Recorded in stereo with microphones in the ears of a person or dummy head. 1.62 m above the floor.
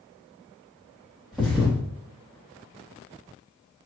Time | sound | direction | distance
1.3 | a thud | 5° left (ahead or behind) | 1.0 m